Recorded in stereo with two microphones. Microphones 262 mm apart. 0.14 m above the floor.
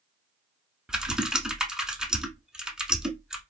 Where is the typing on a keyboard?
5° right (ahead or behind), 0.8 m.